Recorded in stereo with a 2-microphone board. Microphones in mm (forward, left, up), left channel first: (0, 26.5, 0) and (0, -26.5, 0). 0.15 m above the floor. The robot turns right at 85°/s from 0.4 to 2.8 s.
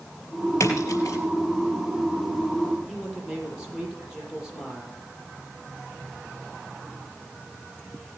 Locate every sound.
0.6 s a splash: 60° left (ahead or behind), 4 m; by 1.2 s 55° left (ahead or behind), 4 m
2.9 s a man speaking: 10° right (ahead or behind), 5.5 m